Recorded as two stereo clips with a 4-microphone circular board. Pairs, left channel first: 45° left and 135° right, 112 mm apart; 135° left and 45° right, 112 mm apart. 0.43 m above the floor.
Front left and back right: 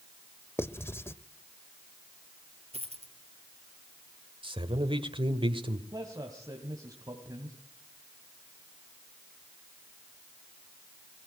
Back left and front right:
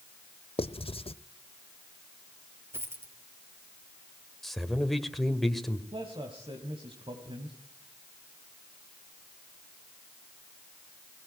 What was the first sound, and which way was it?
Writing, 110° left.